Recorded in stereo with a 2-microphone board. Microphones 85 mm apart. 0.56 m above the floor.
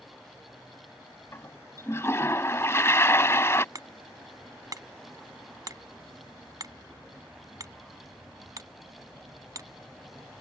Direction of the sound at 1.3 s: 30° left (ahead or behind).